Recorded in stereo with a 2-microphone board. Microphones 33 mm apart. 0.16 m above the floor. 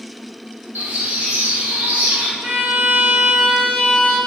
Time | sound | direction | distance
0.8 | a bird | 65° right (ahead or behind) | 4.5 m
2.4 | a violin | 80° right | 5 m